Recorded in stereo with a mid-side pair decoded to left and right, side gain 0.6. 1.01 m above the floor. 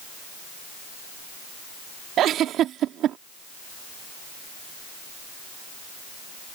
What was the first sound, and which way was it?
A giggle, 55° right.